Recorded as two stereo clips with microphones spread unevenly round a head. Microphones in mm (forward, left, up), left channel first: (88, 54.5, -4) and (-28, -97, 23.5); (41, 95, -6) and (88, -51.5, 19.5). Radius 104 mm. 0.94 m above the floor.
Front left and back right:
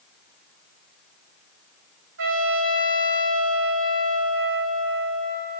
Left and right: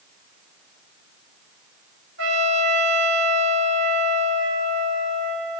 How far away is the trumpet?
About 4 m.